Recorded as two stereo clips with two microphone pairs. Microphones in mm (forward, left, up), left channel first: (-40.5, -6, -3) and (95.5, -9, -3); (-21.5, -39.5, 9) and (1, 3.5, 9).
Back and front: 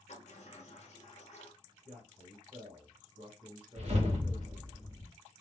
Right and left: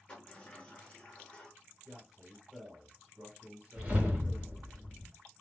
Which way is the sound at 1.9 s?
Straight ahead.